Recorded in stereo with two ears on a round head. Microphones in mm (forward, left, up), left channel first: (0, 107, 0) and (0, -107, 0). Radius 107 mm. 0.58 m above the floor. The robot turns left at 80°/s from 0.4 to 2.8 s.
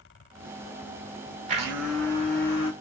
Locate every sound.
1.5 s a blender: 145° right, 1.0 m; by 2.7 s 120° left, 1.0 m